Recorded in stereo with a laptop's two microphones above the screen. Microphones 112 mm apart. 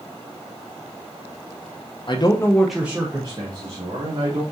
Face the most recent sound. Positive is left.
turn(degrees=-45)  # may be behind; listen again after turning